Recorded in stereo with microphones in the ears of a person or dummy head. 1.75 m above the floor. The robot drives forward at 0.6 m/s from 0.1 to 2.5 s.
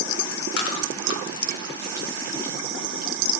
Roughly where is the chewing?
Left.